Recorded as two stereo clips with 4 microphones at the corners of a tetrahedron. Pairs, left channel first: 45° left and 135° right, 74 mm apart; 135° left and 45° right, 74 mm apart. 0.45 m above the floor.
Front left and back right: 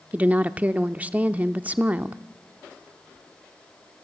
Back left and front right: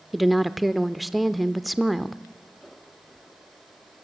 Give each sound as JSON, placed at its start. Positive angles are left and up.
{"t": 0.1, "sound": "a woman speaking", "azimuth_deg": -135, "distance_m": 0.7}